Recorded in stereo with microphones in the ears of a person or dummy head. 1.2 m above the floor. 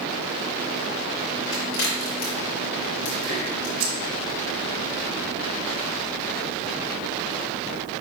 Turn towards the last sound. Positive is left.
turn(degrees=-80)